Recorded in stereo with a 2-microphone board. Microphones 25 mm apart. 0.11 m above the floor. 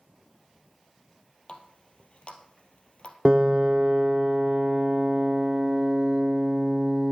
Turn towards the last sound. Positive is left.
turn(degrees=-40)  # may be behind; listen again after turning